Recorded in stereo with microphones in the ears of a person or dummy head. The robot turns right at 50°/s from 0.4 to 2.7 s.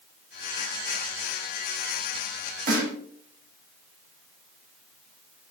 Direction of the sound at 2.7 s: 55° right (ahead or behind).